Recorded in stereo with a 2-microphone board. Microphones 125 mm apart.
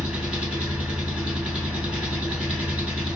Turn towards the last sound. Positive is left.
turn(degrees=-10)  # may be behind; listen again after turning